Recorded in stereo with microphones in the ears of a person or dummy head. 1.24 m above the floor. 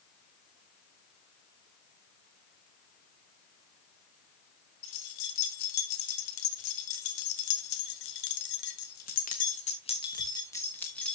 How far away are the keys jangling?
About 3 m.